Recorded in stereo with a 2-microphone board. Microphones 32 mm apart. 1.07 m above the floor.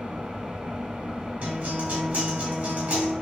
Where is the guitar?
75° right (ahead or behind), 2 m.